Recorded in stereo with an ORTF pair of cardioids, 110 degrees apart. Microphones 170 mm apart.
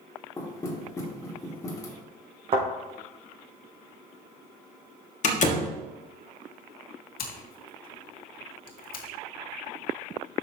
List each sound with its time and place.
0.4 s knocking: 20° left, 2 m
2.5 s a thud: 35° right, 4 m
5.2 s a door slam: 45° left, 1.4 m
7.2 s scissors: 60° left, 1.9 m